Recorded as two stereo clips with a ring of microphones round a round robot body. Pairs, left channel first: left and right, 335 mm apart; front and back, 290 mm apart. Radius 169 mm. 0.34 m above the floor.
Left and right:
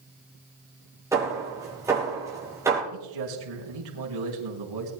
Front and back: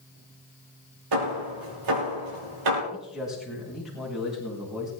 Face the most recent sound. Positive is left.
turn(degrees=-90)